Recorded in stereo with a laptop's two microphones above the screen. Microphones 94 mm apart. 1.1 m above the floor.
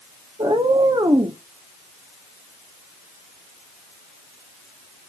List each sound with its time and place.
0.4 s a cat meowing: 65° right (ahead or behind), 0.9 m